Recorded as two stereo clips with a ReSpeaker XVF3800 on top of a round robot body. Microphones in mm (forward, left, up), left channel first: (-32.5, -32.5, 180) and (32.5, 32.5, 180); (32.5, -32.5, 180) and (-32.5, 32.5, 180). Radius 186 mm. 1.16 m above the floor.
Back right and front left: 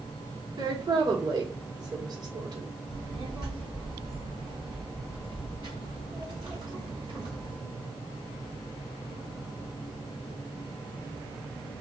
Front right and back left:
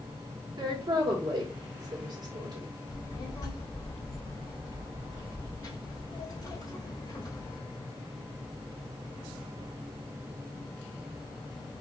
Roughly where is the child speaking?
Ahead.